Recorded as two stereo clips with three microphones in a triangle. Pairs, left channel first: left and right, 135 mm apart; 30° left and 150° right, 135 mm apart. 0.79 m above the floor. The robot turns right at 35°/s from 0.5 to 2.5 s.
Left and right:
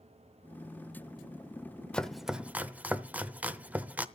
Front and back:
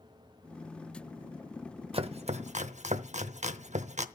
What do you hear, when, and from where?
1.9 s chopping: 170° left, 0.8 m; by 4.1 s 170° right, 0.8 m